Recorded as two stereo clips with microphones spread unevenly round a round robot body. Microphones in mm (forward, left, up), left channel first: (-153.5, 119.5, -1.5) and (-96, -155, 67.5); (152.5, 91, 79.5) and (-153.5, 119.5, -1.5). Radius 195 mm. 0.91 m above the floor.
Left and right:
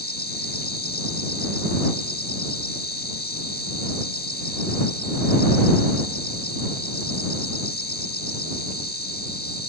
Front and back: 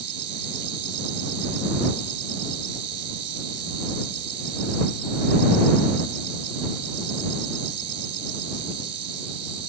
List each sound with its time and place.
0.0 s an insect: 160° left